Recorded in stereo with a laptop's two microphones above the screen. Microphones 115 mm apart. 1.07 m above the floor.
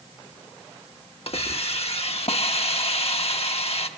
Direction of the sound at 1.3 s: 60° left (ahead or behind).